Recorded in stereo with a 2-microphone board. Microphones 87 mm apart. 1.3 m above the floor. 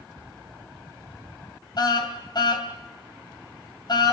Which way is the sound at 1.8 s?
55° left (ahead or behind).